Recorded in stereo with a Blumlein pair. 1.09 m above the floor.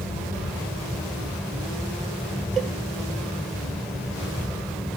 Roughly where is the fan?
Ahead.